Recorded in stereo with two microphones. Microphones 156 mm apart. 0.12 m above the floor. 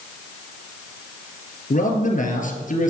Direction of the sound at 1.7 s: 55° left (ahead or behind).